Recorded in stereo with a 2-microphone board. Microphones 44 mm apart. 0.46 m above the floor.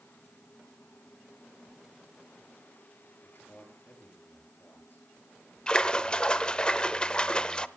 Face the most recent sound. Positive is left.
turn(degrees=20)  # may be behind; listen again after turning